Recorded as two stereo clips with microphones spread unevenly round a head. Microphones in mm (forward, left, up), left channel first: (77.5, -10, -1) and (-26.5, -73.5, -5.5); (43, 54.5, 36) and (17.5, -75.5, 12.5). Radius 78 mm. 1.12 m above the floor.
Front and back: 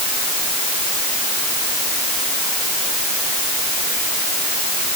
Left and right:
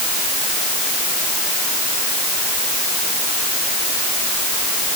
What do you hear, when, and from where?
Only background noise.